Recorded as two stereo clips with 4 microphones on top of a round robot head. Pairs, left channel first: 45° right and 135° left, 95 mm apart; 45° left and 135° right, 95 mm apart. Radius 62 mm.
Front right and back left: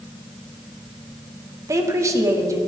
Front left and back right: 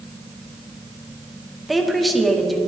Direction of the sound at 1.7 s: 135° left.